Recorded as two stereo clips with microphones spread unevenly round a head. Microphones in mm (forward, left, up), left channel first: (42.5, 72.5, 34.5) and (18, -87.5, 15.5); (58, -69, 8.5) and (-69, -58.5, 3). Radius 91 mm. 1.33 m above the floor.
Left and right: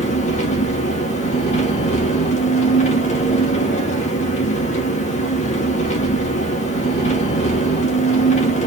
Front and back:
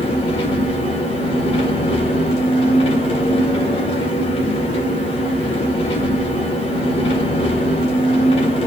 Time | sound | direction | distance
0.0 | an engine running | 45° left | 1.6 m